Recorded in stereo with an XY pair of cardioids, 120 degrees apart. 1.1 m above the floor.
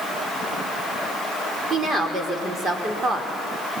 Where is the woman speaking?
35° right, 4 m.